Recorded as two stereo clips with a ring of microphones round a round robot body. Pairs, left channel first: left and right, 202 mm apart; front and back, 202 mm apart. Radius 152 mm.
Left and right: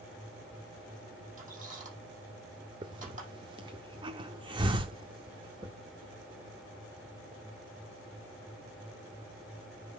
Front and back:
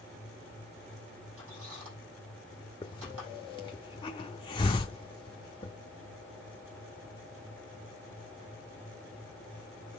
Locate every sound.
1.4 s a squeak: 140° right, 6 m
2.8 s a hiss: 45° right, 0.6 m